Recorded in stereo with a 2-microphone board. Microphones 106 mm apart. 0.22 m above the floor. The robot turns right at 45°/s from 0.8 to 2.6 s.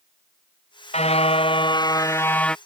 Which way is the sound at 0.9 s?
100° left.